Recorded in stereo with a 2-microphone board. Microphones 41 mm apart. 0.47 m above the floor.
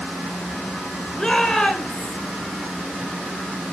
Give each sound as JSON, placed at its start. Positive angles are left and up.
{"t": 1.2, "sound": "a shout", "side_deg": 15, "distance_m": 1.9}